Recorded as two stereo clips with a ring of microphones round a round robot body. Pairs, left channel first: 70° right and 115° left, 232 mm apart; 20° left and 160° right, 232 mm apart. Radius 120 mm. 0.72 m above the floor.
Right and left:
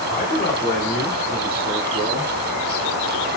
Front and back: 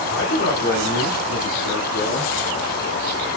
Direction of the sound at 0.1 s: 10° right.